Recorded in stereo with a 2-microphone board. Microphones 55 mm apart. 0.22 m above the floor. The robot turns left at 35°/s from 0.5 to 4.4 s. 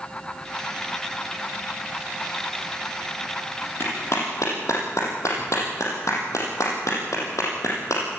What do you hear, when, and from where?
3.8 s a clap: 50° left (ahead or behind), 6 m; by 8.0 s 70° left (ahead or behind), 6 m